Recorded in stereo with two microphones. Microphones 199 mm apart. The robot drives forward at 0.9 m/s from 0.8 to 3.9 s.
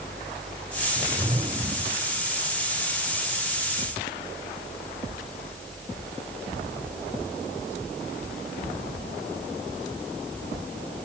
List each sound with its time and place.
1.0 s a whoosh: 30° right (ahead or behind)